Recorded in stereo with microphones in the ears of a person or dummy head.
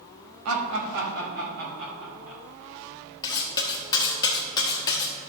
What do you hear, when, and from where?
0.5 s laughter: 90° right, 1.6 m; by 2.4 s 45° right (ahead or behind), 4 m
3.2 s cutlery clinking: 25° left (ahead or behind), 1.2 m